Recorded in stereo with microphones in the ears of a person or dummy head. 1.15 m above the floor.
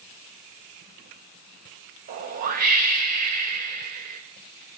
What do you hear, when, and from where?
2.1 s a whoosh: 45° right (ahead or behind), 0.6 m